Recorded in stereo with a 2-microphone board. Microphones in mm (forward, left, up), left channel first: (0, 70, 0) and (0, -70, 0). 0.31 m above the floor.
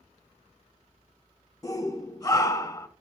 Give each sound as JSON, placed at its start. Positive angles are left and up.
{"t": 1.6, "sound": "a shout", "side_deg": 25, "distance_m": 1.1}